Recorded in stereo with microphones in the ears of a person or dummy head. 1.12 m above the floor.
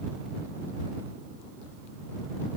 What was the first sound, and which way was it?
Only background noise.